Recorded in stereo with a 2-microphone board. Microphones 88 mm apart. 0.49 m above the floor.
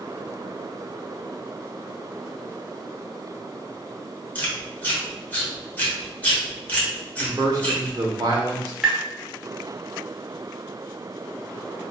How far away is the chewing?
About 1.2 m.